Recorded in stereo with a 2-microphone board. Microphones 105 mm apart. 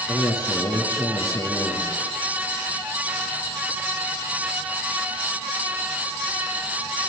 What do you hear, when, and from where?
0.1 s a man speaking: 40° left (ahead or behind), 7.5 m